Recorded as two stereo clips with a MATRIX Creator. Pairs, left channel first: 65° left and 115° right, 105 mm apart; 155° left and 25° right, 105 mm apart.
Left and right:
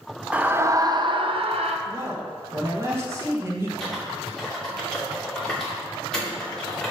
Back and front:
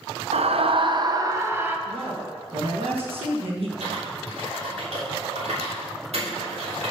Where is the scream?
35° right, 0.7 m; by 1.8 s 95° right, 0.9 m.